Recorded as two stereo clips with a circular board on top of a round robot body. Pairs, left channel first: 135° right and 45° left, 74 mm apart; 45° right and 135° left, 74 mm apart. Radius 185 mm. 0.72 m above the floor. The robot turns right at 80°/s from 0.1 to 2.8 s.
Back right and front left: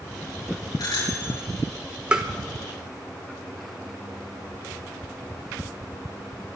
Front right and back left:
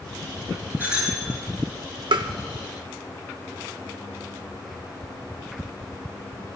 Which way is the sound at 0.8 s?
160° right.